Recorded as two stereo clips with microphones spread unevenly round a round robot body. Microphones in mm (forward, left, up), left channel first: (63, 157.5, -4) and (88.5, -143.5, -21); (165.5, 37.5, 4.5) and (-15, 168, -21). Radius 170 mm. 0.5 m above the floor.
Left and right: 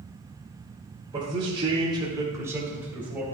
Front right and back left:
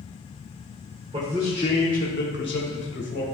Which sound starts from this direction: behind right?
A man speaking, at 1.1 s.